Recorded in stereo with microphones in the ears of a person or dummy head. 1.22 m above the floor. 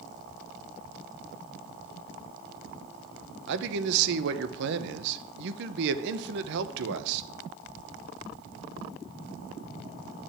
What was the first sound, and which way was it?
A man speaking, 65° right (ahead or behind).